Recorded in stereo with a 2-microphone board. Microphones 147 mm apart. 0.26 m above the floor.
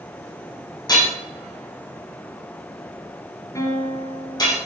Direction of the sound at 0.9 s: 30° left (ahead or behind).